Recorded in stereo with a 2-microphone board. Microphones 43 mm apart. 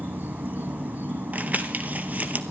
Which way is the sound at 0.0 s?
45° right (ahead or behind).